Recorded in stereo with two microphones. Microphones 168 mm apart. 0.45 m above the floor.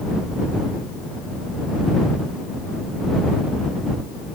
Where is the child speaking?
I don't hear a child speaking.